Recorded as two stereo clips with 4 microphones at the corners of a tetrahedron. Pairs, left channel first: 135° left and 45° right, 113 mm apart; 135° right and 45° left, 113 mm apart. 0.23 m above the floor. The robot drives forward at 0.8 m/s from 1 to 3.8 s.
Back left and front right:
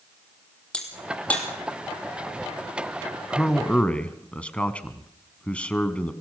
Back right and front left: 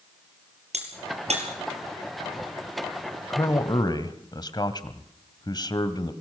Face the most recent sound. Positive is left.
turn(degrees=-150)